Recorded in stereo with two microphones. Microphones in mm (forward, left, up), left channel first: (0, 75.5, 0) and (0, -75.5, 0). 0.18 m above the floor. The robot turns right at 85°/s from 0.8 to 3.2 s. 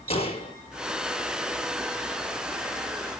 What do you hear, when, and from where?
0.1 s a gunshot: 40° left (ahead or behind), 1.8 m